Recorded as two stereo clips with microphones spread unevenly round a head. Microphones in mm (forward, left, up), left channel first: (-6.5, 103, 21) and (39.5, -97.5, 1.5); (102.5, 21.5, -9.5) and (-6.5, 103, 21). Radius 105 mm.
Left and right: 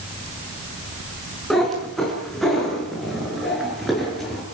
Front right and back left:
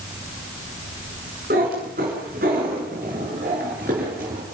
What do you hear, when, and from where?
1.5 s a cat meowing: 170° right, 5.5 m